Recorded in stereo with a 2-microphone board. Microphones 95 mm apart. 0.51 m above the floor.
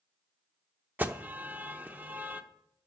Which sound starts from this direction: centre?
An alarm, at 1.0 s.